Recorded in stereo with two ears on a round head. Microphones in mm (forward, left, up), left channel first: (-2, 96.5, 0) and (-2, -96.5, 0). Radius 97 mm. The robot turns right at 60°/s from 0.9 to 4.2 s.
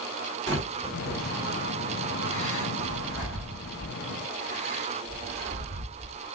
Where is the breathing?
15° left (ahead or behind), 1.9 m; by 6.3 s 30° right (ahead or behind), 1.9 m.